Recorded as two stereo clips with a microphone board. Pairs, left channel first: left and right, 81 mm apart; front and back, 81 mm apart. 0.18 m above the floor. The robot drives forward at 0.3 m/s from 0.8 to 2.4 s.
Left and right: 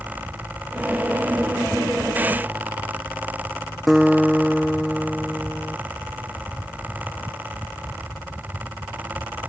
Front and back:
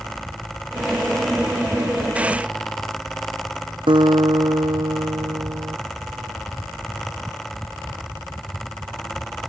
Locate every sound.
3.9 s a guitar: 175° left